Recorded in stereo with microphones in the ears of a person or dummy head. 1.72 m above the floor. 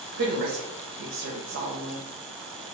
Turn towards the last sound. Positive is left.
turn(degrees=-75)  # may be behind; listen again after turning